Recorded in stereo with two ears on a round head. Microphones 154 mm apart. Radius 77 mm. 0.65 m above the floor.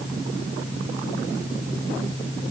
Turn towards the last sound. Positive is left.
No sound to turn to.